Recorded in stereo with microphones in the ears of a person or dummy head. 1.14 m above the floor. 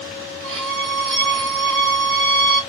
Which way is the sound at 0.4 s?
60° right (ahead or behind).